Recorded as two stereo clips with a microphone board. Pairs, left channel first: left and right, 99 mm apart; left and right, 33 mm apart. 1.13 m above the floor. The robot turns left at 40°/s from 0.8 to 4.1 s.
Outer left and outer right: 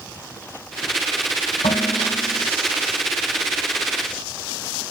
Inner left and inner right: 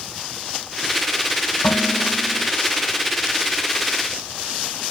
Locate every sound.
1.6 s dishes clattering: 80° left, 4 m; by 2.5 s 45° left, 4 m